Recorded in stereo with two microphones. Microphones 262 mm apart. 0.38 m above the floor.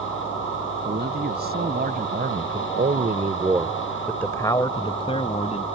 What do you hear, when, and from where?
0.8 s a man speaking: 40° right (ahead or behind); by 5.7 s 25° left (ahead or behind)